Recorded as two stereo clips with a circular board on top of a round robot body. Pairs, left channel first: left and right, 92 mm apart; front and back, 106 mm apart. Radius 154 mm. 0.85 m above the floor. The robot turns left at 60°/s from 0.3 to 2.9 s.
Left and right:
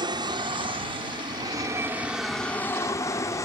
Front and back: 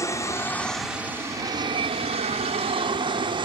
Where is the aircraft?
60° right; by 3.5 s 145° left.